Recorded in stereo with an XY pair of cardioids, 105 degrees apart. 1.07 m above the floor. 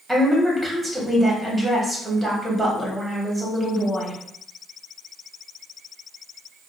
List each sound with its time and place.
0.1 s a woman speaking: 10° right, 1.5 m